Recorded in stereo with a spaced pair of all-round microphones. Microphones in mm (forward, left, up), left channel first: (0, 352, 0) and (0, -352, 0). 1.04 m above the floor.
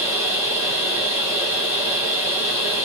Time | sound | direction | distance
0.0 | a machine running | 15° left (ahead or behind) | 2.5 m